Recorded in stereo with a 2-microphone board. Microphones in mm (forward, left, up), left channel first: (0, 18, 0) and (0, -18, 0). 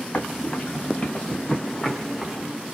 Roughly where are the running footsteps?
Left.